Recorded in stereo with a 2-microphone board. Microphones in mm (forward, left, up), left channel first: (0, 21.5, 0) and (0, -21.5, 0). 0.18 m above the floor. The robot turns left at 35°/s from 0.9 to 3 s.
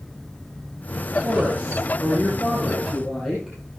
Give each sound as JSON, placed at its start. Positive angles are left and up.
{"t": 1.2, "sound": "a woman speaking", "azimuth_deg": -120, "distance_m": 4.5}